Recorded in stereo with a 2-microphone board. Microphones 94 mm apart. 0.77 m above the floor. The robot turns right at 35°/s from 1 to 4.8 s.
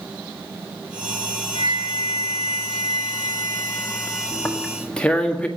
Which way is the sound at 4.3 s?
25° left (ahead or behind).